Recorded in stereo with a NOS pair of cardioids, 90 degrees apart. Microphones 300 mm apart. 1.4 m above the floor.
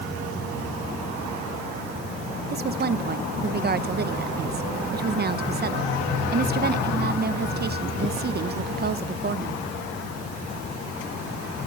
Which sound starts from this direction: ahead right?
A woman speaking, at 2.5 s.